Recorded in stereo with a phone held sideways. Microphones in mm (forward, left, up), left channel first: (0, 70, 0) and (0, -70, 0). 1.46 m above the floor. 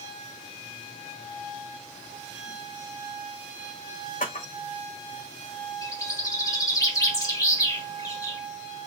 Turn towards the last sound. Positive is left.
turn(degrees=25)  # may be behind; listen again after turning